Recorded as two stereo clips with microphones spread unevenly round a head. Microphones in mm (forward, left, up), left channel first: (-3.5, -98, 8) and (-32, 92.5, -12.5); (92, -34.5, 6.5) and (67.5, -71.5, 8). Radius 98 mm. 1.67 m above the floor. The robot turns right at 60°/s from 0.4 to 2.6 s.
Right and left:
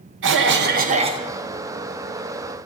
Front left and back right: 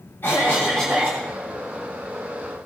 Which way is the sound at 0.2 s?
120° left.